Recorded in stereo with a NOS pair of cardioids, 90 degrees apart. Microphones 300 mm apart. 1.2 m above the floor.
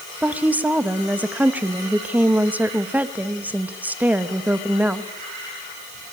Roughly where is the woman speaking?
Ahead.